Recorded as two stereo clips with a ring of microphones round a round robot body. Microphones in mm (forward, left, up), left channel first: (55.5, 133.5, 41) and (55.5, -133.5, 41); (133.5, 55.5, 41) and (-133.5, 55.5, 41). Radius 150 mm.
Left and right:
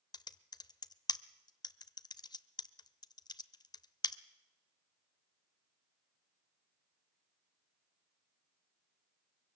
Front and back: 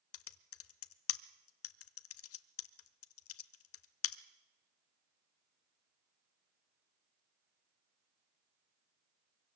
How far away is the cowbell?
No cowbell in this recording.